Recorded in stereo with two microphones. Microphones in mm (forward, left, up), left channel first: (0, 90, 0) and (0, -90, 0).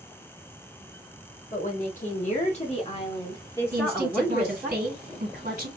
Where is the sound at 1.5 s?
45° left (ahead or behind), 2.0 m; by 4.7 s 15° right (ahead or behind), 1.2 m.